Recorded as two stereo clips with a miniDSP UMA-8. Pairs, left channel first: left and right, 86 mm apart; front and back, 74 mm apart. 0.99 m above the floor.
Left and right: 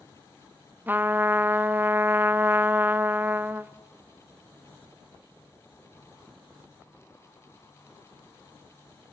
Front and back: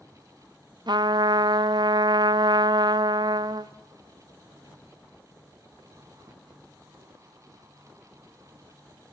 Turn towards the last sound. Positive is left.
turn(degrees=-160)